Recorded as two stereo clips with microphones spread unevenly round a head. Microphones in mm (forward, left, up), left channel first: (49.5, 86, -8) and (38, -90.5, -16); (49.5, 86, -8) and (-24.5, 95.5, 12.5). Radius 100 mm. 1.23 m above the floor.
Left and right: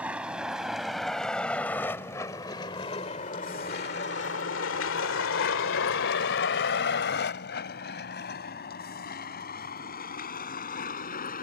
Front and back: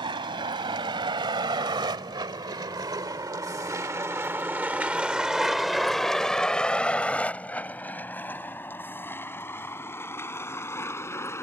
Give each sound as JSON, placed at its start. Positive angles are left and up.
{"t": 0.0, "sound": "a vehicle", "azimuth_deg": 180}